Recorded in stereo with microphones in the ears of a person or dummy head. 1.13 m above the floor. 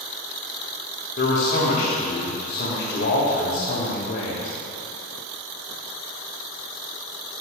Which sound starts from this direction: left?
A man speaking, at 1.2 s.